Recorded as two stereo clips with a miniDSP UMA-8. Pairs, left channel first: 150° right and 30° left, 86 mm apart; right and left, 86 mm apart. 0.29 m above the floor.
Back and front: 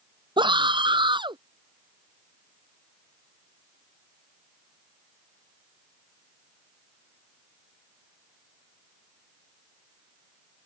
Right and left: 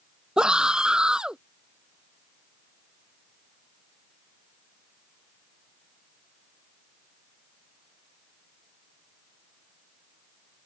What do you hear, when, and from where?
0.4 s a scream: 10° left